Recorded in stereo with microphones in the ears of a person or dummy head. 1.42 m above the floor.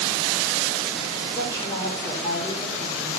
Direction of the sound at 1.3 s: 20° left (ahead or behind).